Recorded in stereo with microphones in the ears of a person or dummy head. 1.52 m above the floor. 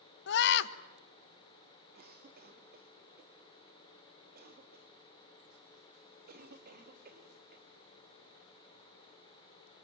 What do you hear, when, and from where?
0.3 s a scream: 60° left (ahead or behind), 1.4 m
1.9 s a cough: 40° right (ahead or behind), 3.5 m